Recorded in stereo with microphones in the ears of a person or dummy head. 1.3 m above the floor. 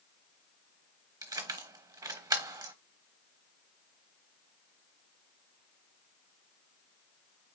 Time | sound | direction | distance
1.2 | keys jangling | 15° right (ahead or behind) | 0.8 m